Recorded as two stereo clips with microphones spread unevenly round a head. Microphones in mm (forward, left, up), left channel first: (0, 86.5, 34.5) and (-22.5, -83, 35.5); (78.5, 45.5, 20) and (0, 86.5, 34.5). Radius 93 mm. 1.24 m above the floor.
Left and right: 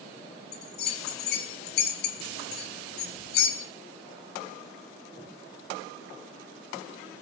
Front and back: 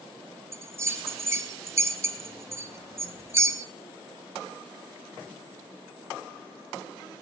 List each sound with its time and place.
0.5 s a bell: 105° left, 1.0 m